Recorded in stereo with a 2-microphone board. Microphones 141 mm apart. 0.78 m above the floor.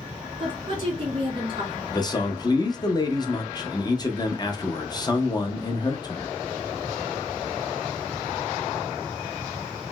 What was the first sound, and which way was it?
A woman speaking, 35° right (ahead or behind).